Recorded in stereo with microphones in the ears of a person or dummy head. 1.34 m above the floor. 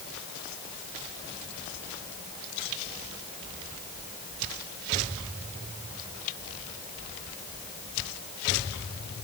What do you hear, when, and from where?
Only background noise.